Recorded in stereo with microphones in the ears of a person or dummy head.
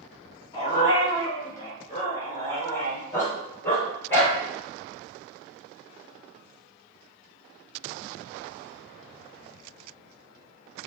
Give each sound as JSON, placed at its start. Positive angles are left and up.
{"t": 0.5, "sound": "a dog barking", "side_deg": 30, "distance_m": 4.5}